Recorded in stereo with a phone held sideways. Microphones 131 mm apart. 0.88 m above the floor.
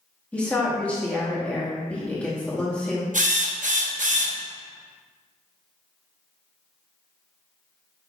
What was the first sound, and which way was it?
A woman speaking, 10° left (ahead or behind).